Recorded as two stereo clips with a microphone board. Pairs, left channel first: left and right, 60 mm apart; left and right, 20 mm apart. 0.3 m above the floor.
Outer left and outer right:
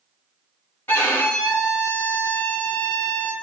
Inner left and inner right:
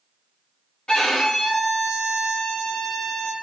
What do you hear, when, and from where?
0.9 s a violin: 40° left (ahead or behind), 1.4 m